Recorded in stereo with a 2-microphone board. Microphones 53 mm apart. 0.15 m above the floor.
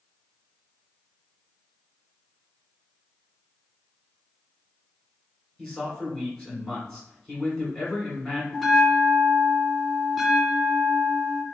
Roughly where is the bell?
Centre.